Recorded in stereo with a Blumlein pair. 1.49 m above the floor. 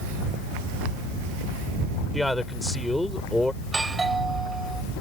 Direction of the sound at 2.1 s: 5° left.